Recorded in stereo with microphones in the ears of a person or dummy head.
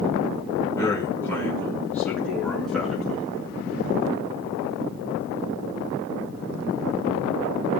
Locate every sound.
0.7 s a man speaking: 20° left (ahead or behind), 5 m; by 3.3 s centre (ahead or behind), 6.5 m